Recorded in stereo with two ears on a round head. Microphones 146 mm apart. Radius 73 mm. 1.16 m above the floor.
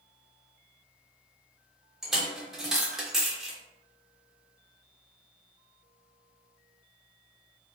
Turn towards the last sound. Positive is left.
turn(degrees=0)  # may be behind; listen again after turning